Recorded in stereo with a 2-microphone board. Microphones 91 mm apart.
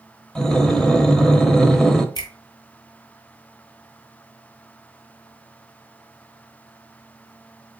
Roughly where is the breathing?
Centre.